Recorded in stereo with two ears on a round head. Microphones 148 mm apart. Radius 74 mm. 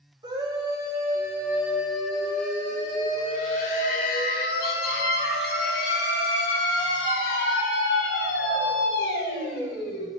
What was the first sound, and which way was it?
A scream, 25° right (ahead or behind).